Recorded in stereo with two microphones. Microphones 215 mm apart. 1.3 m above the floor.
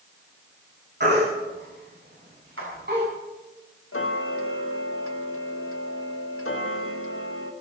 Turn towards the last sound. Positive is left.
turn(degrees=80)